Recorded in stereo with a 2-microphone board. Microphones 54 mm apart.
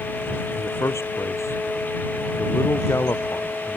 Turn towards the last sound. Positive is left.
turn(degrees=65)  # may be behind; listen again after turning